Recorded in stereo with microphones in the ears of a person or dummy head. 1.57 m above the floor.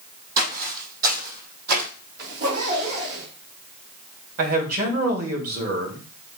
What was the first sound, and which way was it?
Footsteps, 45° right (ahead or behind).